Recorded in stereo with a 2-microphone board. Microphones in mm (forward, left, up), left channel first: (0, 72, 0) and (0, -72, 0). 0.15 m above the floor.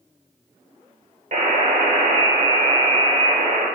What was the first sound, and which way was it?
A buzzer, 55° right (ahead or behind).